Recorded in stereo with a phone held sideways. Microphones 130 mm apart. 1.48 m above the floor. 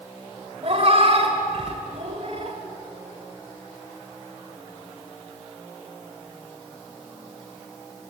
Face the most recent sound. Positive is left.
turn(degrees=-55)  # may be behind; listen again after turning